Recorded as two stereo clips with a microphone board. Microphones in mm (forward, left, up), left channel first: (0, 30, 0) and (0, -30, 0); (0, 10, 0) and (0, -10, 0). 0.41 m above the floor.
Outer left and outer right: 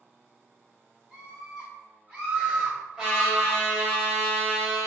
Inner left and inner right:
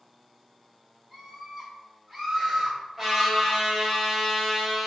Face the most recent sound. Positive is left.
turn(degrees=-15)  # may be behind; listen again after turning